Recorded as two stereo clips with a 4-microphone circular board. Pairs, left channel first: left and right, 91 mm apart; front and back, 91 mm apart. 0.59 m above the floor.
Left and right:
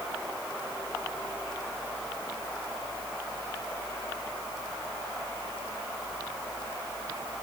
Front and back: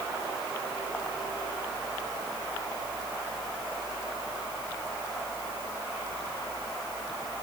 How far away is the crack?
No crack in this recording.